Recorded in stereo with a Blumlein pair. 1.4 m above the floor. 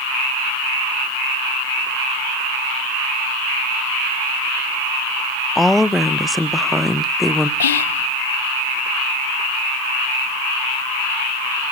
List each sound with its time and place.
5.5 s a woman speaking: 5° left, 0.6 m
7.6 s whispering: 65° left, 0.8 m